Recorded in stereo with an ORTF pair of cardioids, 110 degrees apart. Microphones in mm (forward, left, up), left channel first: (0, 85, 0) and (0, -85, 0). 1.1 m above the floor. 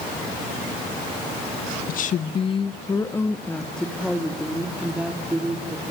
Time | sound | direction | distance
1.9 | a woman speaking | 60° left | 1.0 m